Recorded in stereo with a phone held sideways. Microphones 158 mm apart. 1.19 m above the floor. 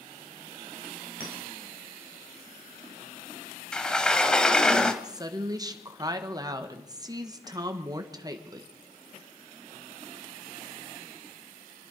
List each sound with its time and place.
1.2 s a clink: 70° left (ahead or behind), 4.5 m
3.7 s a sliding door: 5° left (ahead or behind), 1.0 m
5.0 s a woman speaking: 25° right (ahead or behind), 1.3 m